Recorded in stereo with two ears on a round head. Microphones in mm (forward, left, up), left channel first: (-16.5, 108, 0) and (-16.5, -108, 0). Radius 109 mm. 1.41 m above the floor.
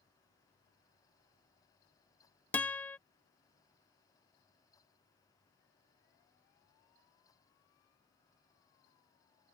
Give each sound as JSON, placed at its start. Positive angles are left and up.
{"t": 2.5, "sound": "a guitar", "side_deg": 5}